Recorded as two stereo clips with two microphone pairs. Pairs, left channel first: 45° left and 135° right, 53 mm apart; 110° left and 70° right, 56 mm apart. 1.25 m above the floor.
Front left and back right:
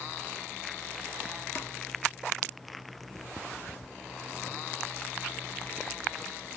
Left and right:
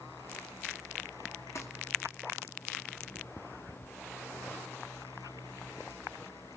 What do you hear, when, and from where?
1.6 s crumpling: 80° left, 3 m